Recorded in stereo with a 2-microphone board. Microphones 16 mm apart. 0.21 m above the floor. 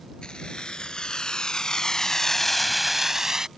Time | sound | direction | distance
0.2 | keys jangling | 70° left (ahead or behind) | ?